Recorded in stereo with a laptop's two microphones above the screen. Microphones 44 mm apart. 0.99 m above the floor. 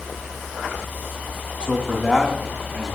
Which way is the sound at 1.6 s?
25° left (ahead or behind).